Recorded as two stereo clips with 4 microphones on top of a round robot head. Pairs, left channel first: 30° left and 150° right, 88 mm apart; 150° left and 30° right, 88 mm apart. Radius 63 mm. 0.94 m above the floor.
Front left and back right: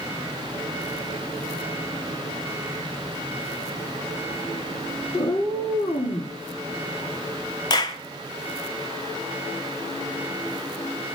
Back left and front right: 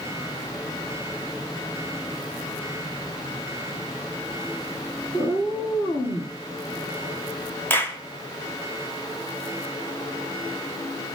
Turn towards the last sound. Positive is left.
turn(degrees=80)